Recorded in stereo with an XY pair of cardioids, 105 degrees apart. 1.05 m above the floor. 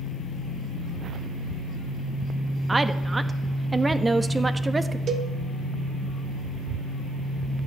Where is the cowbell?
55° right, 1.1 m.